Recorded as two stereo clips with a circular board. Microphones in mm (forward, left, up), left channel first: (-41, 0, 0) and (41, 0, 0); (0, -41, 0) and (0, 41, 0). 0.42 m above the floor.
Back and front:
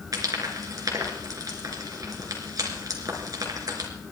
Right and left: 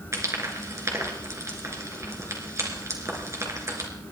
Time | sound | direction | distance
0.1 | frying | 40° left | 3 m